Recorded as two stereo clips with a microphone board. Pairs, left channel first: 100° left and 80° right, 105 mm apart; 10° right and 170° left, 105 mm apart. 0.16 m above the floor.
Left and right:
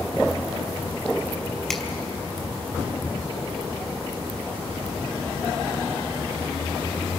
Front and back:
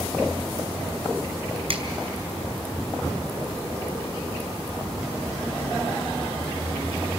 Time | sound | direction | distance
1.7 | a finger snap | 175° right | 2.5 m